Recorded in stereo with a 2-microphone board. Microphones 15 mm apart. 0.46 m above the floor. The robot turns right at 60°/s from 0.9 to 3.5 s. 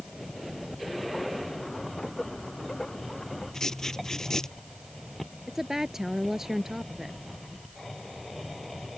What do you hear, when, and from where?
3.5 s writing: 35° left (ahead or behind)
5.5 s a woman speaking: 30° right (ahead or behind)